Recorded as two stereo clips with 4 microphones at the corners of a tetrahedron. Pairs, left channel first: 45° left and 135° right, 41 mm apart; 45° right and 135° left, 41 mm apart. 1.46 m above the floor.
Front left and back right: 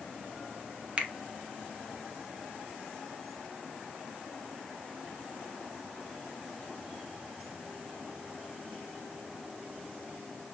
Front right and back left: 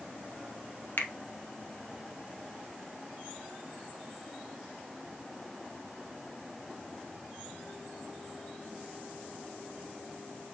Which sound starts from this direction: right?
A finger snap, at 1.0 s.